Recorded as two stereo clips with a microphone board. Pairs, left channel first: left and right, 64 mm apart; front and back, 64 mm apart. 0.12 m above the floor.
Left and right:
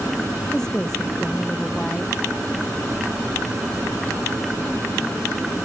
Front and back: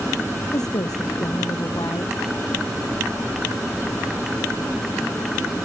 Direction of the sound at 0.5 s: 10° left.